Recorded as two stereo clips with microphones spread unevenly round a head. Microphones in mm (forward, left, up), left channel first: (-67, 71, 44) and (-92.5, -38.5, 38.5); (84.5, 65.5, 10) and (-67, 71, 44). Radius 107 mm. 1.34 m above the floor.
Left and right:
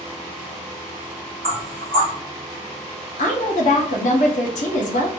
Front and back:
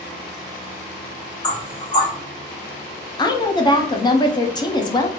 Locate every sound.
1.4 s knocking: 40° right, 1.5 m
3.2 s a woman speaking: 60° left, 0.7 m